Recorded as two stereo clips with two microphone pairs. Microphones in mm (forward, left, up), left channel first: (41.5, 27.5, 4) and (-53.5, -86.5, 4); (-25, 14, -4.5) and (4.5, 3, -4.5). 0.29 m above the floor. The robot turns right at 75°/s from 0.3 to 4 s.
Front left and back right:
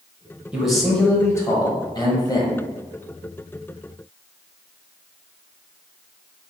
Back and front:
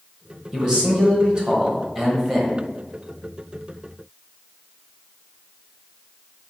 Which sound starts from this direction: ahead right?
A man speaking, at 0.5 s.